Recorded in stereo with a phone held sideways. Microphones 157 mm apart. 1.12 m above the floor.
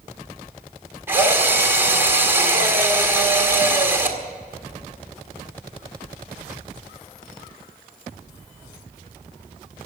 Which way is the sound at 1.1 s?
15° right (ahead or behind).